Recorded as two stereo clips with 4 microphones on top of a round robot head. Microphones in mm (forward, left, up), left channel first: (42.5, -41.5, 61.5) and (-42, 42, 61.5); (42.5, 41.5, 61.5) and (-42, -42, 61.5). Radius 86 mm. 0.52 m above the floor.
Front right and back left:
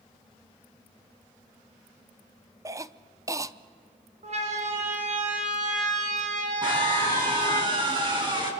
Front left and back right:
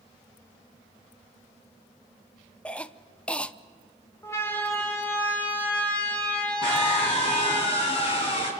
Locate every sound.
2.6 s a cough: 115° left, 0.7 m
4.2 s a siren: 115° left, 2 m; by 7.6 s 125° left, 3.5 m
6.6 s a scream: 85° left, 5 m